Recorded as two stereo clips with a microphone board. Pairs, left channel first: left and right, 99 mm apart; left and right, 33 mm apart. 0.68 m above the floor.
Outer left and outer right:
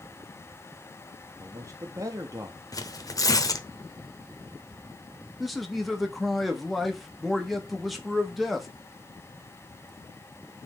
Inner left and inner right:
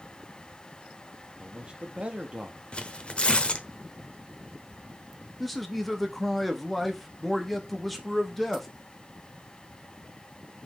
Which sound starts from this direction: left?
Tearing paper, at 2.7 s.